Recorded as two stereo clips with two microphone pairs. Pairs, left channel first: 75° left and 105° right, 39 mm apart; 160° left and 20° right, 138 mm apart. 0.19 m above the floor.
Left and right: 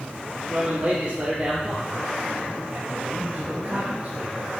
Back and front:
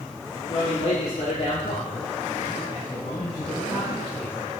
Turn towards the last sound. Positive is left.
turn(degrees=-145)